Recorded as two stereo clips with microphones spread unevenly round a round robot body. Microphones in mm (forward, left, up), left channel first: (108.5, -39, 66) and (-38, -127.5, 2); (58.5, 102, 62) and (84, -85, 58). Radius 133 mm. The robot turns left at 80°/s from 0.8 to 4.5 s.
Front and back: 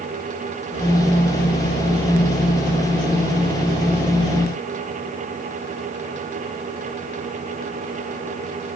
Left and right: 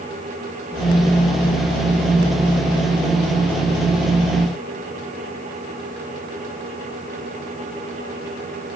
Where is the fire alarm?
No fire alarm in this recording.